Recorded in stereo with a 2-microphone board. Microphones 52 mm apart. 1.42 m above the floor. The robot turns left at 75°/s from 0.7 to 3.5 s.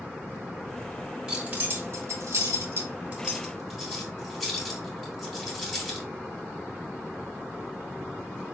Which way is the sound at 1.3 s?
5° right (ahead or behind).